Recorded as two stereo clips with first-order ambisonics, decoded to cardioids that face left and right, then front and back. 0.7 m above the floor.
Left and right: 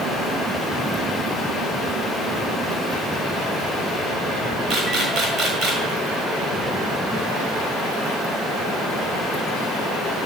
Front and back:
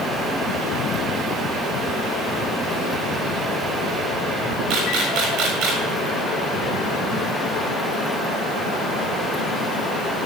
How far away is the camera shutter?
About 7 m.